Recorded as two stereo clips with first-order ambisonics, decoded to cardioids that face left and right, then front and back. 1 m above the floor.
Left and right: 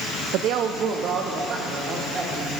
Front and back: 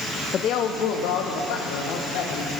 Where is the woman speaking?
60° right, 0.6 m; by 2.5 s 20° right, 3 m.